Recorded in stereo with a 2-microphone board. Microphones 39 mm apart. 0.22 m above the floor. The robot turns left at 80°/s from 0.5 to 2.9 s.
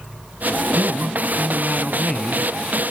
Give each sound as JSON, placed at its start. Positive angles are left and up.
{"t": 0.7, "sound": "a man speaking", "azimuth_deg": -90, "distance_m": 1.8}